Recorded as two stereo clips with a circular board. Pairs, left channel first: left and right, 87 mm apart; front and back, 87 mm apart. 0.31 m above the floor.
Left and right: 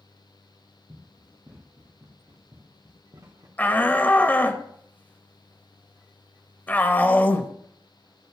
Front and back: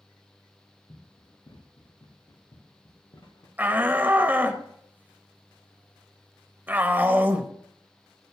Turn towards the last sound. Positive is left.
turn(degrees=135)